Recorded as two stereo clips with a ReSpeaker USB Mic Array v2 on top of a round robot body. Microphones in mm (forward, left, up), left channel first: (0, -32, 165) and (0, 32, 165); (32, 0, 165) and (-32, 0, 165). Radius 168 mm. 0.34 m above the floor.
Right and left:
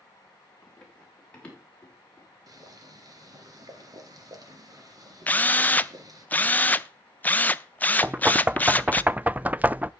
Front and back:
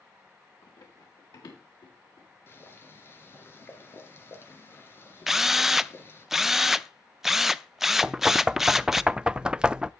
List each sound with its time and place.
0.6 s running footsteps: 10° right, 6 m; by 2.6 s 20° right, 8 m
2.5 s boiling: 55° left, 2.5 m
5.3 s a drill: 100° right, 0.8 m
8.0 s knocking: 120° left, 0.5 m